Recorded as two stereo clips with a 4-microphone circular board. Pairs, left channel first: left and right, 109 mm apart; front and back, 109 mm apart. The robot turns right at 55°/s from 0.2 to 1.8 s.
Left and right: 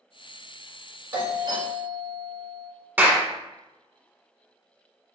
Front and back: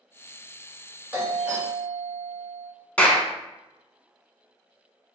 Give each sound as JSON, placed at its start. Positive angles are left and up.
{"t": 1.1, "sound": "a doorbell", "azimuth_deg": -125, "distance_m": 1.9}
{"t": 3.0, "sound": "a clap", "azimuth_deg": -55, "distance_m": 0.9}